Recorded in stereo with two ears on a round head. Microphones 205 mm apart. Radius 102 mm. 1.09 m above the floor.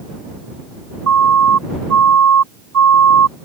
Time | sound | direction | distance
1.1 | a siren | 75° right (ahead or behind) | ?